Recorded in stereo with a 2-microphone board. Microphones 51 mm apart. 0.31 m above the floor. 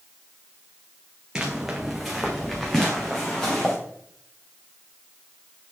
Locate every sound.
1.4 s footsteps: 15° right (ahead or behind), 1.6 m; by 3.7 s 20° left (ahead or behind), 2.5 m